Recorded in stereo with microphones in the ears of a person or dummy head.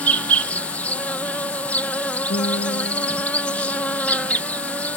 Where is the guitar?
40° left (ahead or behind).